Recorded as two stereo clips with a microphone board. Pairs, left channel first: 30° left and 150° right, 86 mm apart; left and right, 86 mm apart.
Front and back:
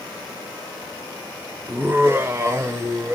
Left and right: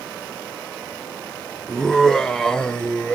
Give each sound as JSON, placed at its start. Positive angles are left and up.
{"t": 1.7, "sound": "laughter", "azimuth_deg": 170, "distance_m": 1.2}